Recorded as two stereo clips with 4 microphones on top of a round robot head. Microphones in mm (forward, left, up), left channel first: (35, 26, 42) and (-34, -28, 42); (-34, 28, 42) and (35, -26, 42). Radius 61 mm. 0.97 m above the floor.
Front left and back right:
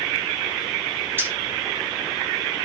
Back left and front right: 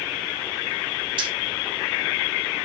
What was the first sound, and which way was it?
Keys jangling, 75° right.